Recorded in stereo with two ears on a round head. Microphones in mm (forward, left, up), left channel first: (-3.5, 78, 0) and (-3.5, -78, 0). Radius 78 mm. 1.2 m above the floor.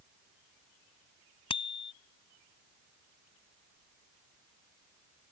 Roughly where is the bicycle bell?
Left.